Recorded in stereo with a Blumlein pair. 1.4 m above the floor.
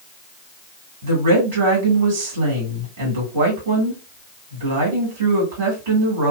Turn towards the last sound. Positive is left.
turn(degrees=-60)